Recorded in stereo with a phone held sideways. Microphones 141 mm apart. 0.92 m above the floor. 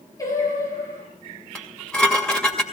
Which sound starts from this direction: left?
Singing, at 0.2 s.